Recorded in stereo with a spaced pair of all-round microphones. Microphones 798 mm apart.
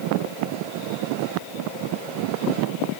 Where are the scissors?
No scissors in this recording.